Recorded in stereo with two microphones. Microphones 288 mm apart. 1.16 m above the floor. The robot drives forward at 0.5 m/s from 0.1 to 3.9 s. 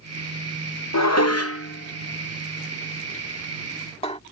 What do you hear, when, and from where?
0.9 s dishes clattering: 65° left (ahead or behind); by 4.2 s 20° left (ahead or behind)